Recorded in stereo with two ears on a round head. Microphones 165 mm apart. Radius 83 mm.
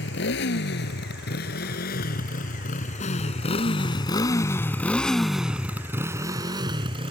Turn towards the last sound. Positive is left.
turn(degrees=-30)  # may be behind; listen again after turning